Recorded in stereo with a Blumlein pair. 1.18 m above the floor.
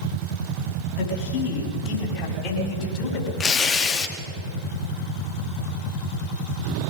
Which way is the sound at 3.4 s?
25° left.